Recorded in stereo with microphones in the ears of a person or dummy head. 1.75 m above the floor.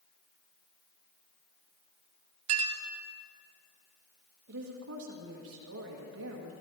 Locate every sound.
2.5 s a clink: 40° right (ahead or behind), 0.9 m
4.5 s a woman speaking: 70° right (ahead or behind), 1.8 m